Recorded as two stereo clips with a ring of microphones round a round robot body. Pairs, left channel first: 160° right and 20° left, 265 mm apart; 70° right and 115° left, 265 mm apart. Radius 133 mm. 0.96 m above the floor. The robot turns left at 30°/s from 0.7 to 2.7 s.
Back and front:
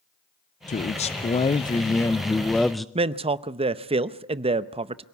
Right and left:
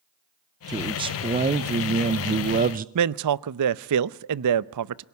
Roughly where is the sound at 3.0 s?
Left.